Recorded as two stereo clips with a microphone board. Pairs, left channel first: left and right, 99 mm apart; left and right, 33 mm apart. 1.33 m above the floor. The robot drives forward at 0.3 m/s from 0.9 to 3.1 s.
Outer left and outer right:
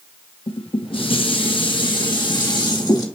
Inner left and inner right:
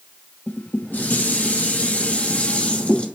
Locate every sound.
0.5 s dishes clattering: 65° left (ahead or behind), 1.1 m; by 3.1 s 45° left (ahead or behind), 1.5 m